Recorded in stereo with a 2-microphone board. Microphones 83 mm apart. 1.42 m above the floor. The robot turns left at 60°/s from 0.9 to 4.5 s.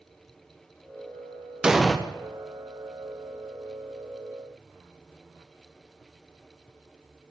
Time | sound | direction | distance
1.6 | an explosion | 10° right (ahead or behind) | 0.6 m